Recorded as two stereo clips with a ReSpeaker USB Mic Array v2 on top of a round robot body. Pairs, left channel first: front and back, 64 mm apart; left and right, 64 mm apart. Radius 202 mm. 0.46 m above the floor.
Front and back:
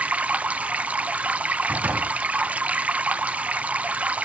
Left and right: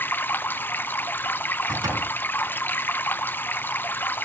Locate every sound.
0.0 s running water: 125° left, 1.2 m
1.7 s a door slam: 115° right, 4.5 m